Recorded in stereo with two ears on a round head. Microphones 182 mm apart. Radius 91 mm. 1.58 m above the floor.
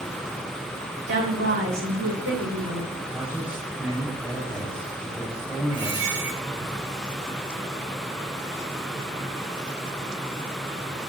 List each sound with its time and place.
1.1 s a woman speaking: 60° right (ahead or behind), 6.5 m; by 2.9 s 80° right, 5.5 m
3.1 s a man speaking: 10° right (ahead or behind), 7 m
5.7 s a squeak: 65° right (ahead or behind), 4 m